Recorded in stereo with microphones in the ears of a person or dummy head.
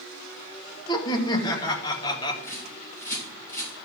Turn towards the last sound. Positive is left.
turn(degrees=15)  # may be behind; listen again after turning